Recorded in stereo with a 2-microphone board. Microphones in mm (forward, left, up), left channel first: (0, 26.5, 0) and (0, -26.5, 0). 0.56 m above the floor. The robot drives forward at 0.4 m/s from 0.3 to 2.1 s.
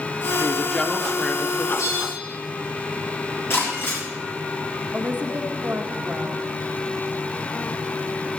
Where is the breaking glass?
50° left (ahead or behind), 6.5 m.